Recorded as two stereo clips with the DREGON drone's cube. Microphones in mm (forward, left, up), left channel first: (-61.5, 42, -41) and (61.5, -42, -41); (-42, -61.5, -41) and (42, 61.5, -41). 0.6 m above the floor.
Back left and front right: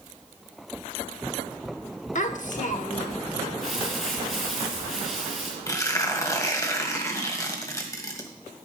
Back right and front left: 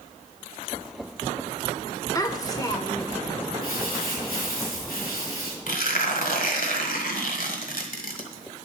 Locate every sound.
2.1 s a child speaking: 170° left, 1.0 m
3.6 s crumpling: 125° right, 5.5 m
5.7 s tearing paper: 145° right, 1.5 m